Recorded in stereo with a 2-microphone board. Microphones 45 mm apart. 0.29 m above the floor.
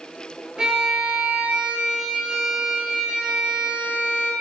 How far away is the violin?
About 3 m.